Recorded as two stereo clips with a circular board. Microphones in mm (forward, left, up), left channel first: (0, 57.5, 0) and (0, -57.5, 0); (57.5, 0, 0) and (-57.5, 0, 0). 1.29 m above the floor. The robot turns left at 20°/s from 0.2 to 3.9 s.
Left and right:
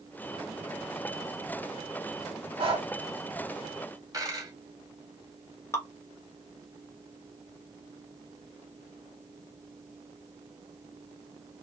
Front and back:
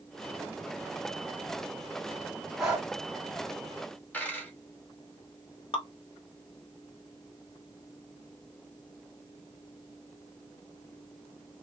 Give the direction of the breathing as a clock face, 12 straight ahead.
3 o'clock.